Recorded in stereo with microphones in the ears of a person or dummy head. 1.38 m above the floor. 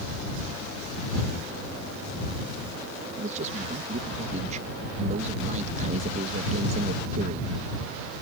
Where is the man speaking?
40° right (ahead or behind).